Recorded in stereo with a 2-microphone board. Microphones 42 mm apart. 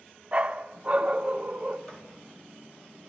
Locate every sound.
0.3 s a dog barking: 30° right (ahead or behind), 0.6 m
1.9 s writing: 20° left (ahead or behind), 4 m